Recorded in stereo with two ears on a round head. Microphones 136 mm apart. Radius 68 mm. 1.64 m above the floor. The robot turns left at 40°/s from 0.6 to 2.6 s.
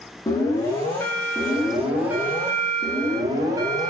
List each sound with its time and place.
0.3 s an alarm: 40° left, 0.6 m; by 3.9 s 40° right, 0.6 m